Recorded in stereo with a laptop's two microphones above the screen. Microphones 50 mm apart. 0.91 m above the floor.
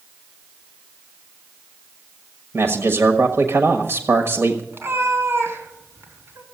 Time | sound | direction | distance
2.5 | a man speaking | 55° right (ahead or behind) | 1.3 m
4.7 | a cat meowing | 50° right (ahead or behind) | 3 m